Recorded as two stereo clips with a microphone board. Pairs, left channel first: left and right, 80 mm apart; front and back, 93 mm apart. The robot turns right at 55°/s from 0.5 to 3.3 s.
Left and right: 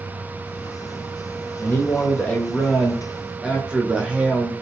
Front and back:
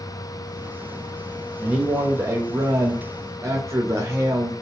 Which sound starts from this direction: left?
A man speaking, at 1.6 s.